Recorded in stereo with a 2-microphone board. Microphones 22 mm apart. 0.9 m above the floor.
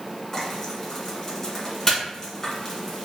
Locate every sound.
0.3 s frying: 25° left (ahead or behind), 1.7 m